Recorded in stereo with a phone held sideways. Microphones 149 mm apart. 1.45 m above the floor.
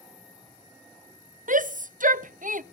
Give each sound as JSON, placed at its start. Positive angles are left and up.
{"t": 1.5, "sound": "a shout", "side_deg": -60, "distance_m": 0.5}